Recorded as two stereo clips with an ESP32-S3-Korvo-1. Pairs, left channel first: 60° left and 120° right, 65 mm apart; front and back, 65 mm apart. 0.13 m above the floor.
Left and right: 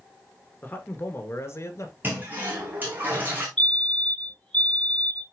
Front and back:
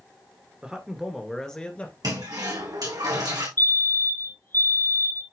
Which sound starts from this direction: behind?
A toilet flushing, at 2.0 s.